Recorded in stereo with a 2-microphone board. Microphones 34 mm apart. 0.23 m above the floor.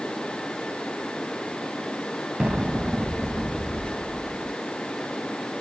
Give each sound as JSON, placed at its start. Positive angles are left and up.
{"t": 2.4, "sound": "an explosion", "side_deg": -30, "distance_m": 1.5}